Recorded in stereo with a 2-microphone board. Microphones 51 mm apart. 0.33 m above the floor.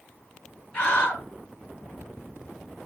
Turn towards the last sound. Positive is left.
turn(degrees=20)  # may be behind; listen again after turning